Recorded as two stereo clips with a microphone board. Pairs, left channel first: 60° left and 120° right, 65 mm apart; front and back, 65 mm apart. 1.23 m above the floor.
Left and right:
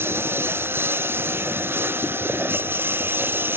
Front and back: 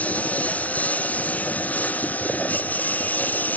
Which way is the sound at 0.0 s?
65° right.